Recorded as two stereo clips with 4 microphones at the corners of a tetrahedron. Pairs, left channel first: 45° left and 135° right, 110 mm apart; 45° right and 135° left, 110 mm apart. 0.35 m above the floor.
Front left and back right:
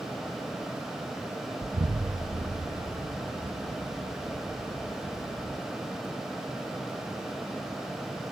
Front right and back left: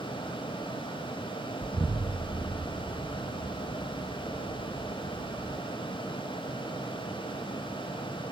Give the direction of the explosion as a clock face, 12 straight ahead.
4 o'clock.